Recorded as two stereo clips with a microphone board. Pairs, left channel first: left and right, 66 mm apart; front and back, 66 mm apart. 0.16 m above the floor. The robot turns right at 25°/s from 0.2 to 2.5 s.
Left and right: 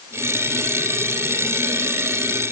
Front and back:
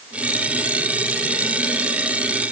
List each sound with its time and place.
Only background noise.